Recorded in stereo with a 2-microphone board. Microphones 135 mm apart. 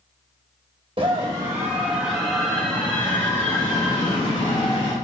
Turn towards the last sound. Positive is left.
turn(degrees=30)  # may be behind; listen again after turning